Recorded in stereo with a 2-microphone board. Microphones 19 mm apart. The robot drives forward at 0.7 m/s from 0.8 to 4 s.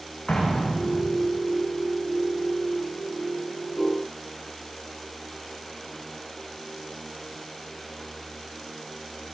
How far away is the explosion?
About 8 m.